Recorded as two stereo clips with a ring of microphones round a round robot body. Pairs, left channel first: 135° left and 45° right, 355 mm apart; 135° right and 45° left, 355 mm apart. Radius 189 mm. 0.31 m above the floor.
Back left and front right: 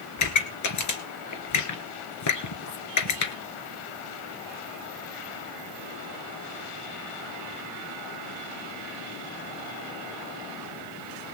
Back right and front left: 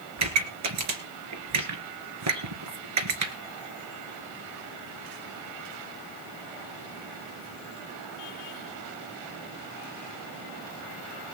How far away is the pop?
About 2.5 m.